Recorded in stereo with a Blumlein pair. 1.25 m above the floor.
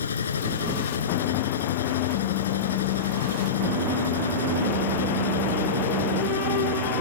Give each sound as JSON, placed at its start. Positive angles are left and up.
{"t": 0.0, "sound": "a machine running", "azimuth_deg": 70}